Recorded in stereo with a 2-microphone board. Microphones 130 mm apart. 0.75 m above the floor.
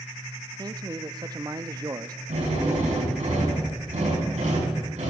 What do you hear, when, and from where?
0.6 s a man speaking: 30° right (ahead or behind), 0.6 m
2.3 s a drill: 70° right (ahead or behind), 7 m